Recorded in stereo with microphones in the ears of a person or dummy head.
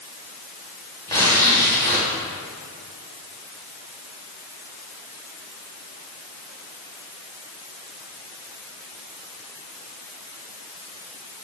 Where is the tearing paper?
20° left (ahead or behind), 3.5 m.